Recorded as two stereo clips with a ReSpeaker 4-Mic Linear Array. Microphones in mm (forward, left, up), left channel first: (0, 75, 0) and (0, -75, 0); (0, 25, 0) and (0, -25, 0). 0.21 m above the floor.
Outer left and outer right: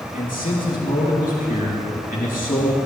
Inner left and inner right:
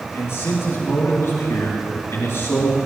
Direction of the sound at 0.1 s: 70° left (ahead or behind).